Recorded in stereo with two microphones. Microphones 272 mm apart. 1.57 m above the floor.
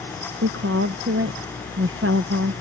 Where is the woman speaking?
50° right (ahead or behind).